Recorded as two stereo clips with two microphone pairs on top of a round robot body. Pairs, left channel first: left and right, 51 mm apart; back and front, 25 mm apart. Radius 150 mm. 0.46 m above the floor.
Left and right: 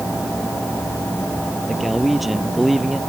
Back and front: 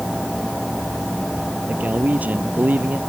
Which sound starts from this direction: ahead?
A man speaking, at 1.7 s.